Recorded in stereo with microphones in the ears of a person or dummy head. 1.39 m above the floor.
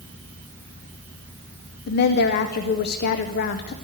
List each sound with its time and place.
1.9 s a woman speaking: 55° left (ahead or behind), 0.6 m